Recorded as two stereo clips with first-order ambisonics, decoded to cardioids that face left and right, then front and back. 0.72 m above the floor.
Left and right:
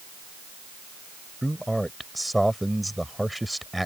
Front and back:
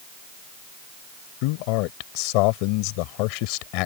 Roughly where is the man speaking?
Ahead.